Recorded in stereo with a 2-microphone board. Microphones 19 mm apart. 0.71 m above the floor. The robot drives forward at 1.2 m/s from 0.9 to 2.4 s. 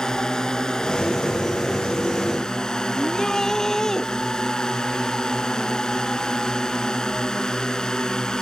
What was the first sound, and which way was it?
A drone, 40° left (ahead or behind).